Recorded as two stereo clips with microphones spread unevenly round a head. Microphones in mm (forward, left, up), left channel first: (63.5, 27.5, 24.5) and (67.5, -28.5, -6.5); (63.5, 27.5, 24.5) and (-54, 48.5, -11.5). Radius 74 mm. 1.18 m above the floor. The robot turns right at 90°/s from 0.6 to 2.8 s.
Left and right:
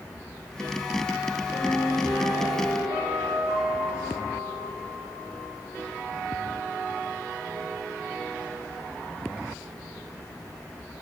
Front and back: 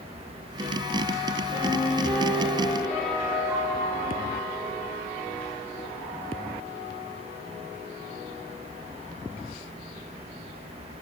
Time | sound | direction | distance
1.5 | a piano | 145° left | 7 m